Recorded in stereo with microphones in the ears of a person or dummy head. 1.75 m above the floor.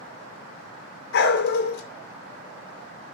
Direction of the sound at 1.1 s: 60° left (ahead or behind).